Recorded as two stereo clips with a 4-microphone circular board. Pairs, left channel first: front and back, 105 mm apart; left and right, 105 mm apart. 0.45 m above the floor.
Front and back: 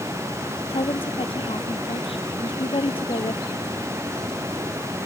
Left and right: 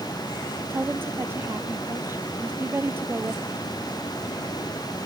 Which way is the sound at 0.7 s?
20° right.